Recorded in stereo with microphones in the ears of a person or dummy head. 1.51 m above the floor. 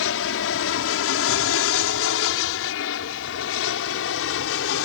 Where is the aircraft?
70° left (ahead or behind).